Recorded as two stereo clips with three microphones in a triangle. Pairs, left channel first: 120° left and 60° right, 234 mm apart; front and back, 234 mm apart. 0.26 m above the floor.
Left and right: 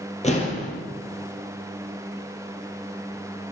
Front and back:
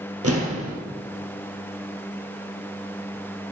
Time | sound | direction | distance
0.2 | an explosion | straight behind | 1.8 m